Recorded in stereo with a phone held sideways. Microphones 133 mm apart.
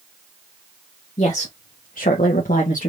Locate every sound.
1.2 s a woman speaking: 50° left (ahead or behind), 1.2 m; by 2.9 s 60° left (ahead or behind), 1.5 m